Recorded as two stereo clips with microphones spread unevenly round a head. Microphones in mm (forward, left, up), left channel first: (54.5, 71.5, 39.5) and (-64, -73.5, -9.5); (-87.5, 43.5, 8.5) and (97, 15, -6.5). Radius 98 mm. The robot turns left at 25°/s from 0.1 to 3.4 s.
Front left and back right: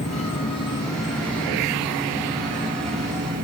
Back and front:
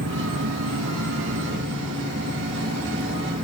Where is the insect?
5° left, 2.5 m; by 3.4 s 75° right, 2.5 m.